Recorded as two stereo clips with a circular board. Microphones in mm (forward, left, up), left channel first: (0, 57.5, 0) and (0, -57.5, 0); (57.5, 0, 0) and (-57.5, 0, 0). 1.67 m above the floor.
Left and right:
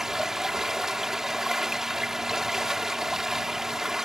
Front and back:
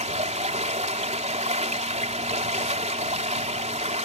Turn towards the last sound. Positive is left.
turn(degrees=-175)